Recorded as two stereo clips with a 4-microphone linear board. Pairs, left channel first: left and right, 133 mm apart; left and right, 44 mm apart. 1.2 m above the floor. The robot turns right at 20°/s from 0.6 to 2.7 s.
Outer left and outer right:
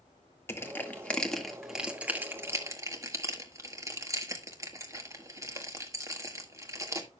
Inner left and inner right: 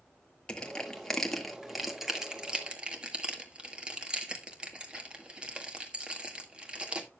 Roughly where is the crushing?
Centre.